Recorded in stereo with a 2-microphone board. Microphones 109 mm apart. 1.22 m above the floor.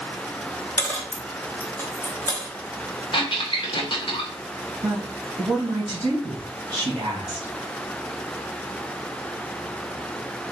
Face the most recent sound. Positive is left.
turn(degrees=-35)  # may be behind; listen again after turning